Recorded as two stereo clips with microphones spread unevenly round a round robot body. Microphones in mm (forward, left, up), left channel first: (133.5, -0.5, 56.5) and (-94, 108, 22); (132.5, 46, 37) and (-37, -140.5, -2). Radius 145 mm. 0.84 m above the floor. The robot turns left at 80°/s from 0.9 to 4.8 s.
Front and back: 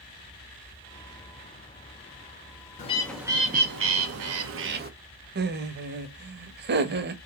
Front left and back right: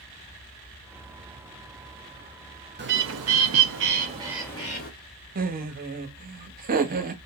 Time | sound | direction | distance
2.8 | a bird | 90° right | 1.1 m
5.3 | laughter | 175° right | 1.1 m